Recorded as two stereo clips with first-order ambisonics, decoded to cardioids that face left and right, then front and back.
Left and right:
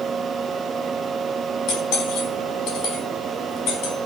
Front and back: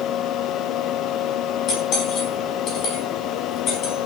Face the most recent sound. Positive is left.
turn(degrees=50)